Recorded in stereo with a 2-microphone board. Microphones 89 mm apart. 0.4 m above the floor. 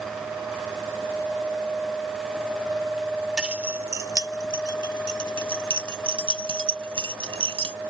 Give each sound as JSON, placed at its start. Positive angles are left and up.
{"t": 3.4, "sound": "keys jangling", "side_deg": -10}